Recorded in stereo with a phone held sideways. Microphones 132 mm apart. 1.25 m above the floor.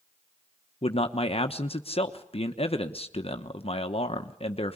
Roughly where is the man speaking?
Left.